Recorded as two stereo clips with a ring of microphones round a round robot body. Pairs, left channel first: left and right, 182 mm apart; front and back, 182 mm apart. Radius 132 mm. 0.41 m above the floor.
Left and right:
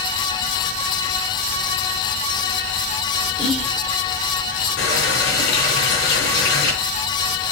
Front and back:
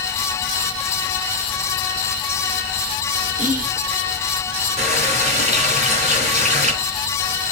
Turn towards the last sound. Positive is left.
turn(degrees=130)